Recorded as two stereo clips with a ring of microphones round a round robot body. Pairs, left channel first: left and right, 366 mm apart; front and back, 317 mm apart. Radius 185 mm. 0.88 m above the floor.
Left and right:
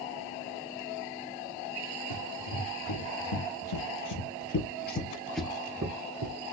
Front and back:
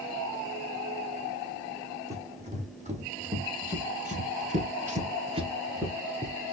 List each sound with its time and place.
2.1 s running footsteps: 110° left, 3 m; by 6.5 s 90° right, 1.2 m